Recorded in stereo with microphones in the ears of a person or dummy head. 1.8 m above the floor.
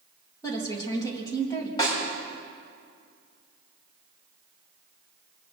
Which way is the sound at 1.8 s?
25° left (ahead or behind).